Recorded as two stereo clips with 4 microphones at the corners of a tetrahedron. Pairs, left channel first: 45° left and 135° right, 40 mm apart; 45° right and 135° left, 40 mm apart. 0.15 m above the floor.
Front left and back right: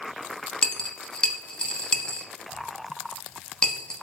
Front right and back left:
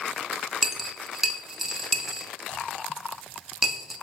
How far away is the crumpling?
I don't hear crumpling.